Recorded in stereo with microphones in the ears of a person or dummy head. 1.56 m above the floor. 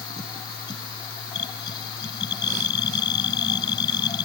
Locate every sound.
0.0 s a machine running: 30° left (ahead or behind)